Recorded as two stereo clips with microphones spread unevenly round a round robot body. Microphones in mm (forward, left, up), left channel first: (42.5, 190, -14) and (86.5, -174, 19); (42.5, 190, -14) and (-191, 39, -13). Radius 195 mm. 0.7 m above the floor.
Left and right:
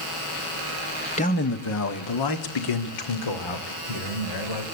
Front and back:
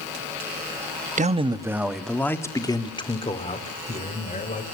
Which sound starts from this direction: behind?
A man speaking, at 1.2 s.